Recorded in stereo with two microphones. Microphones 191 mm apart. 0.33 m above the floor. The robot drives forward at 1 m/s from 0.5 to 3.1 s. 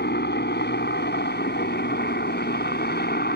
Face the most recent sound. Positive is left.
turn(degrees=60)  # may be behind; listen again after turning